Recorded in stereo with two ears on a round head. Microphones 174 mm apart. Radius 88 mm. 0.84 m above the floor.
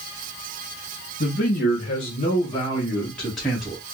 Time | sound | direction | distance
1.2 | a man speaking | 50° left (ahead or behind) | 1.3 m